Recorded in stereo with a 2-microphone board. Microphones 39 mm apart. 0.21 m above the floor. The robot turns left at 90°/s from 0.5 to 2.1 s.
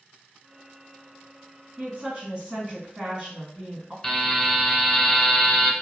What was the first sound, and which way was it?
A woman speaking, 40° right (ahead or behind).